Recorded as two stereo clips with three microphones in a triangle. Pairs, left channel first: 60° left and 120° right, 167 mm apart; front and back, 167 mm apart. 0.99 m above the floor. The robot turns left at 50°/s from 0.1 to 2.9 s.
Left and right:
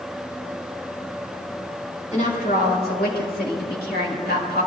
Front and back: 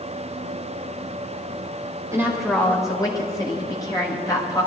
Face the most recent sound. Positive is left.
turn(degrees=65)